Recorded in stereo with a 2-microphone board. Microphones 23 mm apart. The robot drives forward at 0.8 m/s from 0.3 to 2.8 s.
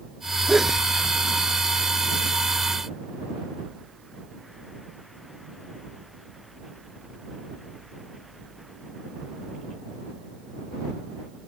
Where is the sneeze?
15° right (ahead or behind).